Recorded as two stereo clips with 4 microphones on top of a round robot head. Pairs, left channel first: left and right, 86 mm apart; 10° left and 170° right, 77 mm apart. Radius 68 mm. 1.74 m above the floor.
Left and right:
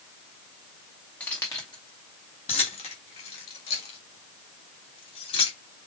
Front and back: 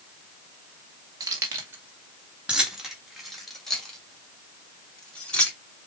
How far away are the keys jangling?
About 1.2 m.